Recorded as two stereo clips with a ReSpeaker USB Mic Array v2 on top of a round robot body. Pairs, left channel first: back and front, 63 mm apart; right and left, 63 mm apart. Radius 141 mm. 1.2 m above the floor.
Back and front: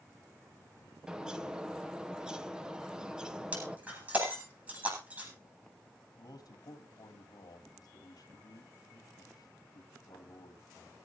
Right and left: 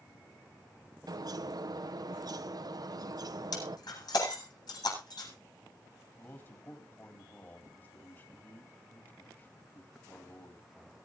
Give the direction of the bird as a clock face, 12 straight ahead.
9 o'clock.